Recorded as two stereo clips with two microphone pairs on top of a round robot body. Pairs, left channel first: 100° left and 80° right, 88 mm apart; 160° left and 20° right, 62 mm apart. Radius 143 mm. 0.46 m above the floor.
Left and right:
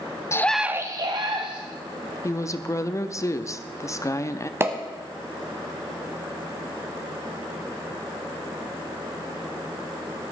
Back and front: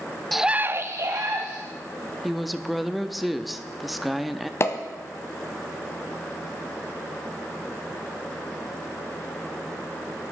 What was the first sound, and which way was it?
A scream, 85° left.